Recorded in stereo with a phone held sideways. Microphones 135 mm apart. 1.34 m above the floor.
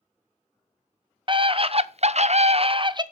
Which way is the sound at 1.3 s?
40° right (ahead or behind).